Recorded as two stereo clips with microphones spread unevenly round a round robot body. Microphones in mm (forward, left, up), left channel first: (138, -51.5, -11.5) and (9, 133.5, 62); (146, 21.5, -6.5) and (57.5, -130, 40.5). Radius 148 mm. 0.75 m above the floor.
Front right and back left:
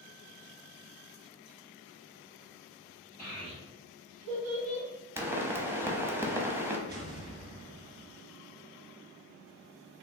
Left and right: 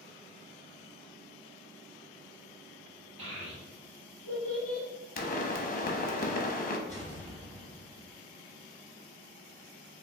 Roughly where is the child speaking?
Behind right.